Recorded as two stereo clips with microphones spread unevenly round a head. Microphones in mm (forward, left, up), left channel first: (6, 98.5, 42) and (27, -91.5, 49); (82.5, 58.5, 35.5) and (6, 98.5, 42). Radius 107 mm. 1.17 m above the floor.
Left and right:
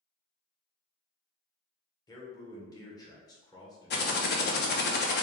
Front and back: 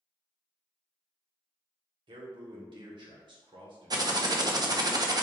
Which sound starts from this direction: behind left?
Typing on a keyboard, at 3.9 s.